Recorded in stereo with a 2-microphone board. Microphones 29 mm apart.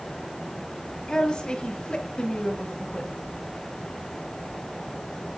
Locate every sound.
1.1 s a woman speaking: 30° left (ahead or behind), 1.4 m; by 3.1 s 35° left (ahead or behind), 1.4 m